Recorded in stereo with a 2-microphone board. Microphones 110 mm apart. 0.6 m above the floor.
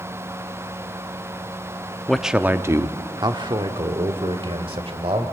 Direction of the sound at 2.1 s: 5° left (ahead or behind).